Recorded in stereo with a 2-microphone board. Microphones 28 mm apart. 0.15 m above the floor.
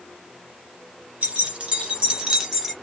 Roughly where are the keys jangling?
Right.